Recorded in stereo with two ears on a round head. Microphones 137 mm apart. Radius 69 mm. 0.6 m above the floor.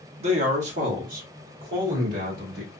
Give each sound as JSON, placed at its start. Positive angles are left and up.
{"t": 0.2, "sound": "a man speaking", "side_deg": -40, "distance_m": 1.1}